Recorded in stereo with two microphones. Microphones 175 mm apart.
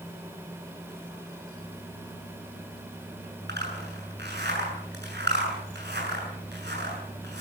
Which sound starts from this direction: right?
A zipper, at 3.5 s.